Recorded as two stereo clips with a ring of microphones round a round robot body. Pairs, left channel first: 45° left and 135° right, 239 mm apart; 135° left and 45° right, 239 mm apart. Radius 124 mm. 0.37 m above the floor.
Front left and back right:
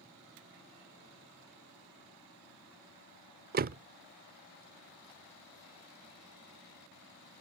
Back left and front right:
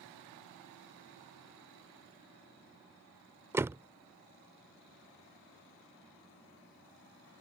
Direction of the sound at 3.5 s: 120° right.